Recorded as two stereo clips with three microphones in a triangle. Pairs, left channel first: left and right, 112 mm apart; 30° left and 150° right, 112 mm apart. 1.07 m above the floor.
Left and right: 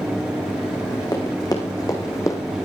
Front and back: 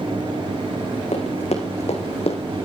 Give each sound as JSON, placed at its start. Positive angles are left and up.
{"t": 1.1, "sound": "running footsteps", "azimuth_deg": 40, "distance_m": 4.5}